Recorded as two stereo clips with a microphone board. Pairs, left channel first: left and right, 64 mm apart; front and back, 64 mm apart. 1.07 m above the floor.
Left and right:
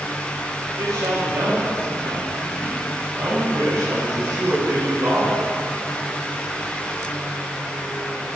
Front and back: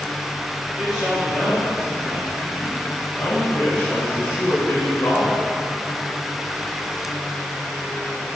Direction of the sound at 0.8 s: 95° right.